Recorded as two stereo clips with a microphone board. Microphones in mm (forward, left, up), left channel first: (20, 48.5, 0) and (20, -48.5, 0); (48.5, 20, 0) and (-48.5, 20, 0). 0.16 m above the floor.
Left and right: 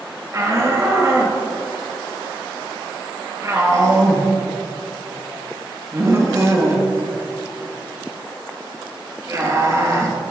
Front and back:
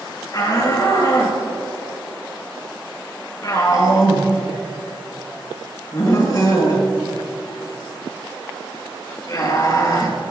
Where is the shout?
40° right, 3 m.